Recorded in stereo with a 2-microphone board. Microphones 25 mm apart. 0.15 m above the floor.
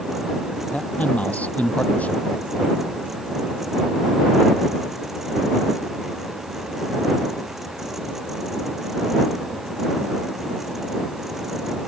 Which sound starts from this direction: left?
A man speaking, at 0.7 s.